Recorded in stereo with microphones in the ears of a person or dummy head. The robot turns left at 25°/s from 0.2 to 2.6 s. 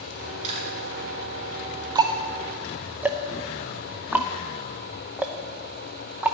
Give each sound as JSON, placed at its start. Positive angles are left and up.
{"t": 0.4, "sound": "chewing", "side_deg": -35, "distance_m": 7.5}
{"t": 1.9, "sound": "ticking", "side_deg": -20, "distance_m": 0.6}